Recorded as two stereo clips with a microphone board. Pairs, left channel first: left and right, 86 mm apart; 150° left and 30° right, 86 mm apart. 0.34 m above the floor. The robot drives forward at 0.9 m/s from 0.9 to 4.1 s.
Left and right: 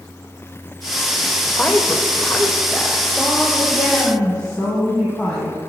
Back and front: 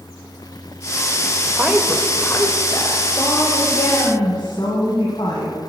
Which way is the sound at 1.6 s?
35° left.